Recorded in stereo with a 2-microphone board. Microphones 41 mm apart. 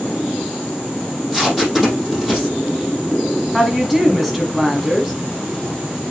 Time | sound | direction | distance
1.1 | tape being pulled | centre (ahead or behind) | 5 m
3.5 | a woman speaking | 5° right (ahead or behind) | 1.2 m